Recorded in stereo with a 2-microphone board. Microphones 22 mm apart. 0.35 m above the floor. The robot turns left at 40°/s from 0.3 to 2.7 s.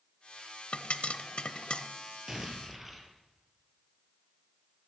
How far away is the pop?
About 0.6 m.